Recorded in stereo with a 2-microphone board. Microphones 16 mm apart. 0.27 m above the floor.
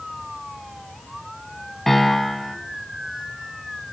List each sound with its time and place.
1.9 s a piano: 20° left (ahead or behind), 1.3 m